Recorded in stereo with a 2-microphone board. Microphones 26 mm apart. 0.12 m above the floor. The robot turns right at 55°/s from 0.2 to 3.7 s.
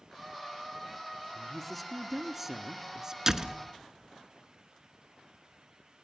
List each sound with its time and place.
1.3 s a woman speaking: 15° left (ahead or behind), 1.1 m; by 3.2 s 25° right (ahead or behind), 1.1 m
3.3 s a door slam: 20° right (ahead or behind), 1.2 m; by 3.6 s 25° right (ahead or behind), 1.2 m